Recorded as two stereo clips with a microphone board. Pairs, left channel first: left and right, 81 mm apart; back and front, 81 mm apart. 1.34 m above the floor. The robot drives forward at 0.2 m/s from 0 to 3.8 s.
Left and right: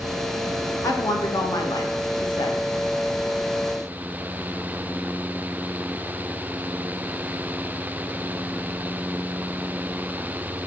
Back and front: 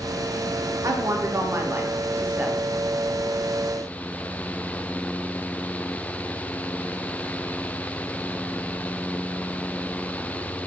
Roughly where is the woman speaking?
Ahead left.